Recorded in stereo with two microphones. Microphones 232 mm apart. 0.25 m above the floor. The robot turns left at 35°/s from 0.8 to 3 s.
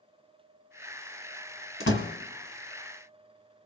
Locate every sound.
1.8 s a door slam: 65° left (ahead or behind), 1.4 m